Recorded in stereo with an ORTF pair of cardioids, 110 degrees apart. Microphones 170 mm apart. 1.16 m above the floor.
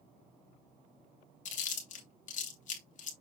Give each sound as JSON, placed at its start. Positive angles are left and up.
{"t": 1.4, "sound": "chewing", "azimuth_deg": 45, "distance_m": 3.0}